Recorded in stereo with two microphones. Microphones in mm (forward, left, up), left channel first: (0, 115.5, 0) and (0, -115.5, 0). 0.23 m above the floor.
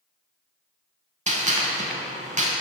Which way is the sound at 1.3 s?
30° right (ahead or behind).